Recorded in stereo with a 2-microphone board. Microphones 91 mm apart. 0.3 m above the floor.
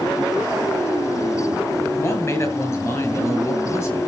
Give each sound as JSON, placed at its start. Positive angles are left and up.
{"t": 2.0, "sound": "a man speaking", "side_deg": 30, "distance_m": 5.5}